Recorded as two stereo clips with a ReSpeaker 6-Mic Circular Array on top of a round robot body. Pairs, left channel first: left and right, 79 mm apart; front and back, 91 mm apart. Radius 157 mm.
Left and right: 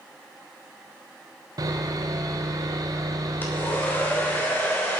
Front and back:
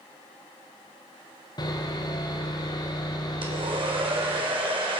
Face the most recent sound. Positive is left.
turn(degrees=155)